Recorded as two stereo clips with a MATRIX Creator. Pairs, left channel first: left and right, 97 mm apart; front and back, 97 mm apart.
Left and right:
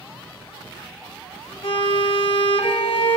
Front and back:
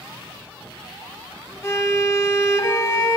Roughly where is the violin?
Ahead left.